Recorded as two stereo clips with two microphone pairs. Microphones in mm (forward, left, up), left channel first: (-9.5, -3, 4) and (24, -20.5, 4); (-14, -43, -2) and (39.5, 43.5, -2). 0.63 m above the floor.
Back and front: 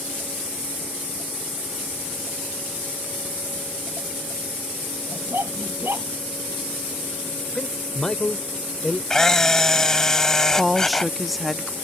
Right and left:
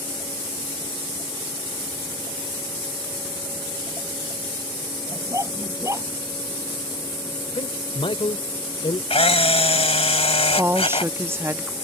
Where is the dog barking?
Straight ahead.